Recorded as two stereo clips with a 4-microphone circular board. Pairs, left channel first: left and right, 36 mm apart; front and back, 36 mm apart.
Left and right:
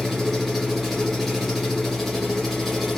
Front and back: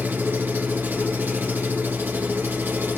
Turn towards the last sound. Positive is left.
turn(degrees=175)